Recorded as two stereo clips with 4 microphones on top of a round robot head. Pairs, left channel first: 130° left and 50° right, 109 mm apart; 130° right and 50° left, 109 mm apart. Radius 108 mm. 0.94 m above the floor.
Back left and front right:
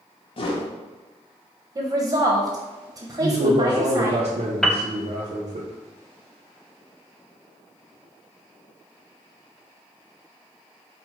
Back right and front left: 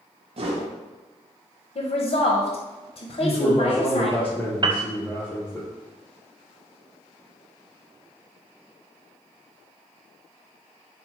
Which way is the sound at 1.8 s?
100° right.